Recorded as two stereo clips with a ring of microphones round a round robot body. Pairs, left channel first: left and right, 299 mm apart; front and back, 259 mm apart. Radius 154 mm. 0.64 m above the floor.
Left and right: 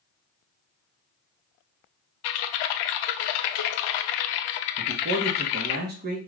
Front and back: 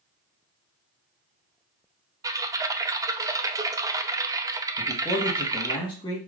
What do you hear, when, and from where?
2.2 s typing on a keyboard: 100° left, 0.5 m
4.8 s a man speaking: 65° right, 0.9 m